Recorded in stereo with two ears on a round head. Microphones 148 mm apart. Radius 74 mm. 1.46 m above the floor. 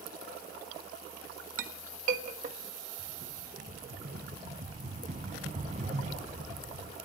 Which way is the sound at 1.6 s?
45° right (ahead or behind).